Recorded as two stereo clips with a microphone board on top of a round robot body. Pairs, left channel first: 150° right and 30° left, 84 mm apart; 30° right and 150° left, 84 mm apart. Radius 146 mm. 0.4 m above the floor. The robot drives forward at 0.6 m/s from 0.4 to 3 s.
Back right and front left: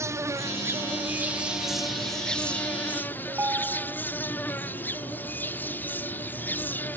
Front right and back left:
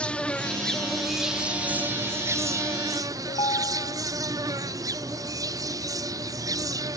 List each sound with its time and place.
0.0 s an insect: 40° left; by 7.0 s 150° left
3.3 s a ringtone: 35° right